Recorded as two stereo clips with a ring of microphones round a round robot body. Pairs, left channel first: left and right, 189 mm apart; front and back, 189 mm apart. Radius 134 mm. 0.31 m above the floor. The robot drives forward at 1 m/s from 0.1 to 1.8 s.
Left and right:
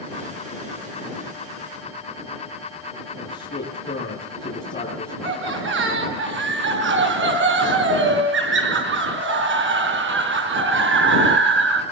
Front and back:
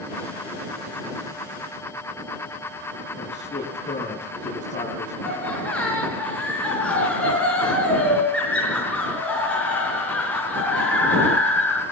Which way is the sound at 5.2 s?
85° right.